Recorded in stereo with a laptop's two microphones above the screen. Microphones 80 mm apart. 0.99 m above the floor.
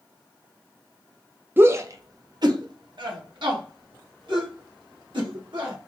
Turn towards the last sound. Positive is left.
turn(degrees=-80)